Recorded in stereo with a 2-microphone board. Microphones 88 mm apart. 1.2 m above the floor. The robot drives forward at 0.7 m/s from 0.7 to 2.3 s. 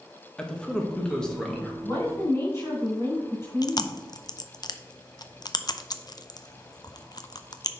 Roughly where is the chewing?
Left.